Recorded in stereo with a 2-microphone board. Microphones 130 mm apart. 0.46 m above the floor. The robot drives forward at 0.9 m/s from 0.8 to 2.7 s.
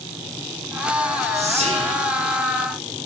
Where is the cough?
I don't hear a cough.